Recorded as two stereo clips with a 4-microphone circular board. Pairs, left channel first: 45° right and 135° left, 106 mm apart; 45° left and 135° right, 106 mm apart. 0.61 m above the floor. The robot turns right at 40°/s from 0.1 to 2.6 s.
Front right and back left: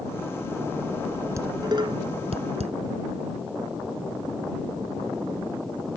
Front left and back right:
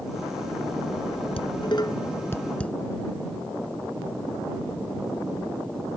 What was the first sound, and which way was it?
Dishes clattering, 75° left.